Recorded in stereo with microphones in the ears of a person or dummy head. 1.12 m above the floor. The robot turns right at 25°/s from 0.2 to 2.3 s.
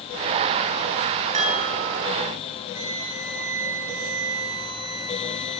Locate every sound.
1.3 s a chime: 35° right (ahead or behind), 7.5 m; by 2.0 s 50° right (ahead or behind), 7.5 m
2.7 s a flute: 80° right, 6.5 m